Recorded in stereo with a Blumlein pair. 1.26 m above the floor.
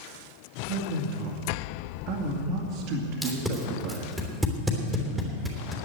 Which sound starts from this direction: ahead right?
A man speaking, at 0.7 s.